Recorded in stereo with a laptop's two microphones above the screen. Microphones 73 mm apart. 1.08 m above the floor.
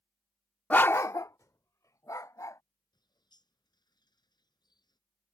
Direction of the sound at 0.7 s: 20° left (ahead or behind).